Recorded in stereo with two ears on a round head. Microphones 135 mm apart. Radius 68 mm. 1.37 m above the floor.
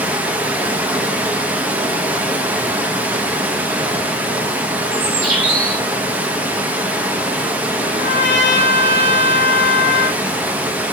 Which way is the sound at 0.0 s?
10° right (ahead or behind).